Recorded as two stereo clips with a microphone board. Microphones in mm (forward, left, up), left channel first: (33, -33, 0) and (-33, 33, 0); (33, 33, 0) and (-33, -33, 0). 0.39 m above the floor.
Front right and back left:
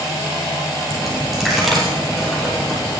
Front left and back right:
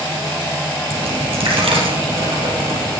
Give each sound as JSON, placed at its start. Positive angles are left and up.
{"t": 0.9, "sound": "a dropped coin", "azimuth_deg": -135, "distance_m": 3.5}